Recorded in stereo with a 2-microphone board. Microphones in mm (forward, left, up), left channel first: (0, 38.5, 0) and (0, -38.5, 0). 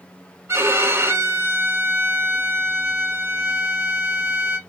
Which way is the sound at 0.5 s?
35° right (ahead or behind).